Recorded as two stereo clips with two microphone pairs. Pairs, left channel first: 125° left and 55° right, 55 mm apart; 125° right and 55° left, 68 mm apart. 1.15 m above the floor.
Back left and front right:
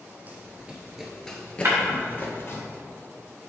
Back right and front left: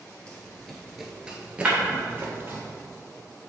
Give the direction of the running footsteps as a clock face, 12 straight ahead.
2 o'clock.